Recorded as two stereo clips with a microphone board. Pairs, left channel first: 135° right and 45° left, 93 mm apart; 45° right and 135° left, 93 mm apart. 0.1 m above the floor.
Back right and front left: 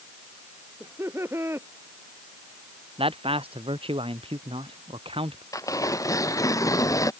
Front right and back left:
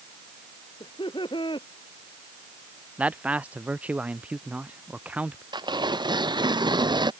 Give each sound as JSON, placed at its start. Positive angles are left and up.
{"t": 0.8, "sound": "laughter", "azimuth_deg": -15}
{"t": 3.0, "sound": "a man speaking", "azimuth_deg": 60}
{"t": 5.5, "sound": "tearing paper", "azimuth_deg": 170}